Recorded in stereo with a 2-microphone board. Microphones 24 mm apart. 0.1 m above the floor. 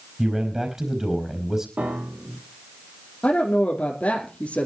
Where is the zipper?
No zipper in this recording.